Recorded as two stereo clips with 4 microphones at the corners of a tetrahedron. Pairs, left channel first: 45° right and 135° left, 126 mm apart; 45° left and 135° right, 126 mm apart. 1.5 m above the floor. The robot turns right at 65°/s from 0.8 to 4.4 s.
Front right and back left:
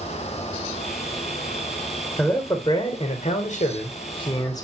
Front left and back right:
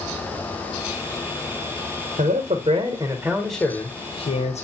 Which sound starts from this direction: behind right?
A man speaking, at 2.2 s.